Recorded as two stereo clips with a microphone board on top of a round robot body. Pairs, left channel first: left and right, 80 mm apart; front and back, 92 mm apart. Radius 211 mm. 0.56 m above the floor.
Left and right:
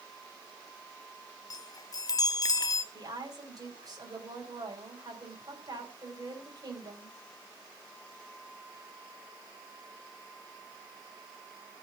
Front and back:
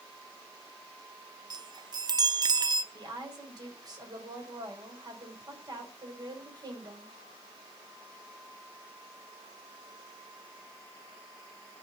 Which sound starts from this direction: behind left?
A chime, at 1.5 s.